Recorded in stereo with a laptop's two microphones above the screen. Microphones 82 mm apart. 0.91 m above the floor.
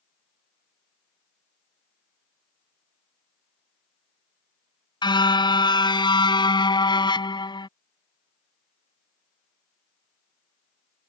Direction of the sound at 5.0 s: 70° left (ahead or behind).